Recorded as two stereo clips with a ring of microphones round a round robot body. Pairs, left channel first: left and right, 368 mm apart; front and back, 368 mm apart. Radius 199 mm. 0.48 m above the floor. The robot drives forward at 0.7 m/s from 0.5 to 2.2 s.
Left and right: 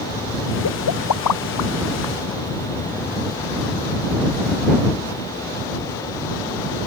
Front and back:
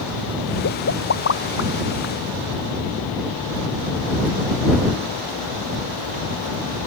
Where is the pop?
50° left; by 2.1 s 60° left.